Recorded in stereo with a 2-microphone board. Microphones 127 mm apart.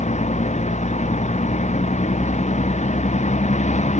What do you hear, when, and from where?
0.0 s a vehicle: 65° left (ahead or behind)